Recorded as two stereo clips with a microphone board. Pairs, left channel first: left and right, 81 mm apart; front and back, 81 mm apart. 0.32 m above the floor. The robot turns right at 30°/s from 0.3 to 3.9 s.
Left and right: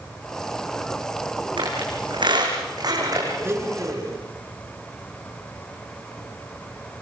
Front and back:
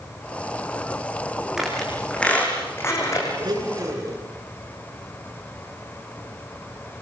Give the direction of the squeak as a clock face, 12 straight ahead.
3 o'clock.